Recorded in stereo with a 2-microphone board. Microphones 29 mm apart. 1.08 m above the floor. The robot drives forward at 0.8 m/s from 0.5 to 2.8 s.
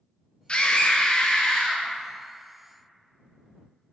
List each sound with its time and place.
0.5 s a scream: 35° left (ahead or behind), 0.9 m; by 1.9 s 25° left (ahead or behind), 1.2 m